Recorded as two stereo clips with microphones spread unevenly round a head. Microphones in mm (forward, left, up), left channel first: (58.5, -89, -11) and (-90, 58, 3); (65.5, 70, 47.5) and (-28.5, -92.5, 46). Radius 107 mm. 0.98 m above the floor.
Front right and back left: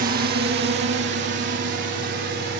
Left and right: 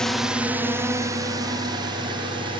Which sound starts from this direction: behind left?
A drone, at 0.0 s.